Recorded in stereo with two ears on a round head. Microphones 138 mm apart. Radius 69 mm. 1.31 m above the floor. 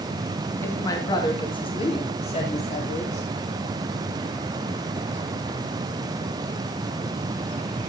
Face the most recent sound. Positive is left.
turn(degrees=50)  # may be behind; listen again after turning